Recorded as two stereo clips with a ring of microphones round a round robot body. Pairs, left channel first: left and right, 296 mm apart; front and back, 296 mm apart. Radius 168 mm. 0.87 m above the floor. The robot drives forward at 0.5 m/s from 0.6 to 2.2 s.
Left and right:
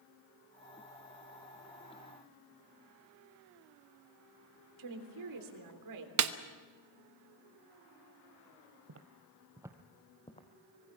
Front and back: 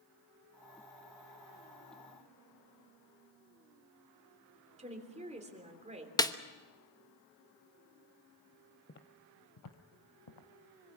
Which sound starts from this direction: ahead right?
Footsteps, at 8.9 s.